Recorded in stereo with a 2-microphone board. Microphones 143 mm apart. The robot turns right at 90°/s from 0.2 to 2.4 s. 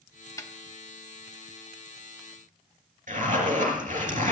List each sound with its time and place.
0.4 s a snare drum: 20° left (ahead or behind), 1.0 m; by 0.5 s 30° left (ahead or behind), 1.0 m
3.1 s a zipper: 65° right (ahead or behind), 3 m